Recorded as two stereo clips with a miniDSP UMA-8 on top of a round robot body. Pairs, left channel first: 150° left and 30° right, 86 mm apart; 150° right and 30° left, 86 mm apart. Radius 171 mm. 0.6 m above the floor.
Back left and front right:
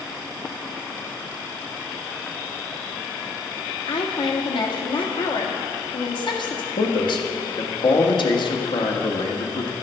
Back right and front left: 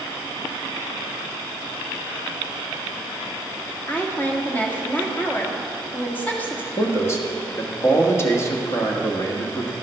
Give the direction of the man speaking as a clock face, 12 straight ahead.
7 o'clock.